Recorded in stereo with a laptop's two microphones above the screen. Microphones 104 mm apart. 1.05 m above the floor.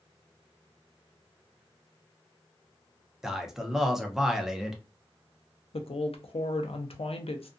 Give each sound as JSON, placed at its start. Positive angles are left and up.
{"t": 3.2, "sound": "a man speaking", "side_deg": -5, "distance_m": 0.7}
{"t": 5.7, "sound": "a woman speaking", "side_deg": 75, "distance_m": 0.5}